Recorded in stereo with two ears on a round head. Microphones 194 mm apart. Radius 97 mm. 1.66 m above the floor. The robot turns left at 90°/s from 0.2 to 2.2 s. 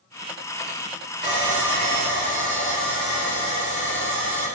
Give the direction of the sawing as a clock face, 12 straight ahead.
4 o'clock.